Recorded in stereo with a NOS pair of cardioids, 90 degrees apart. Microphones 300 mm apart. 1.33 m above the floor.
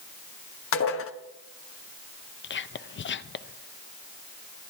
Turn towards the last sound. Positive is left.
turn(degrees=35)